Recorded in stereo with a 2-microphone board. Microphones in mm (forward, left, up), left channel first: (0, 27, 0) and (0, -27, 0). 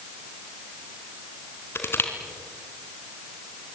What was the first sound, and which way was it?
Crushing, 50° left (ahead or behind).